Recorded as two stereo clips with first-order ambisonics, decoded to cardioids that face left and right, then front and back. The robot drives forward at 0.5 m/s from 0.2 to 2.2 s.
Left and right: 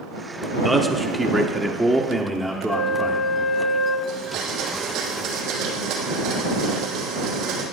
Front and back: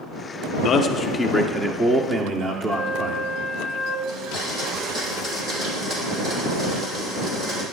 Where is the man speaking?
5° right, 0.8 m; by 3.3 s 170° right, 0.8 m.